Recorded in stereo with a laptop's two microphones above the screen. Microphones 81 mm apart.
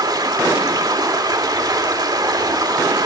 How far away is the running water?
About 2 m.